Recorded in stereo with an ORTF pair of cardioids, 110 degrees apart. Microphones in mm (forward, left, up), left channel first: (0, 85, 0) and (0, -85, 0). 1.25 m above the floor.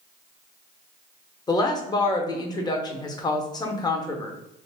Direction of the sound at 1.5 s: 20° left.